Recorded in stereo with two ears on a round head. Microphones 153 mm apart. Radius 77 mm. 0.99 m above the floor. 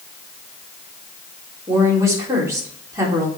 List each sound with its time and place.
1.7 s a woman speaking: 20° right (ahead or behind), 3 m